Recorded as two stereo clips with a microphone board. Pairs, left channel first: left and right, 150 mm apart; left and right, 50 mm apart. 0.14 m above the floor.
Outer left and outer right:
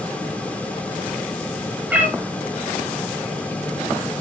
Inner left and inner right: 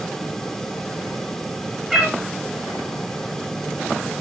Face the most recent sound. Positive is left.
turn(degrees=-10)  # may be behind; listen again after turning